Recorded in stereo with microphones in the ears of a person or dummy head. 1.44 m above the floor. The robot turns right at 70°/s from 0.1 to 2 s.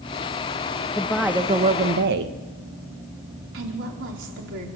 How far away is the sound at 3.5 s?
About 4 m.